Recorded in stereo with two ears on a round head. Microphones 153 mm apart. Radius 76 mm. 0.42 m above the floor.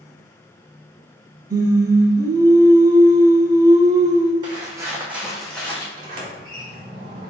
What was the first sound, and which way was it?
Singing, 20° right (ahead or behind).